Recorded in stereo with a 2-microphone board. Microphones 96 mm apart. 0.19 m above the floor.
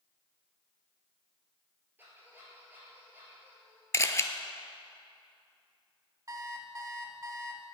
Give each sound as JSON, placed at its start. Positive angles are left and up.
{"t": 2.0, "sound": "a squeak", "side_deg": -20, "distance_m": 2.5}
{"t": 3.9, "sound": "a camera shutter", "side_deg": 30, "distance_m": 0.5}
{"t": 6.3, "sound": "an alarm clock", "side_deg": -35, "distance_m": 0.8}